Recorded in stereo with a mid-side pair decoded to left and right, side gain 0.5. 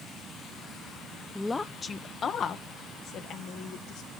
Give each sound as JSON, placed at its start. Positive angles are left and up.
{"t": 1.4, "sound": "a woman speaking", "azimuth_deg": 20, "distance_m": 1.2}